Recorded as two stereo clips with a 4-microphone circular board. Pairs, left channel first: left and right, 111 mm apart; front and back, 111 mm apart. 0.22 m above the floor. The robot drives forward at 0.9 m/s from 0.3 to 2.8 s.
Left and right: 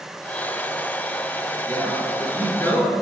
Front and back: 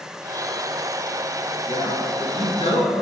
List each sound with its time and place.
1.7 s a man speaking: 15° left, 3.5 m; by 2.9 s 20° left, 2.5 m